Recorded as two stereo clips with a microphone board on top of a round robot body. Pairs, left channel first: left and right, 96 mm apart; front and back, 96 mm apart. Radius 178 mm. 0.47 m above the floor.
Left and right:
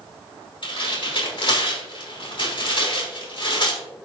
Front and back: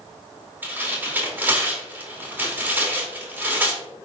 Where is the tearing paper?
110° left, 3 m.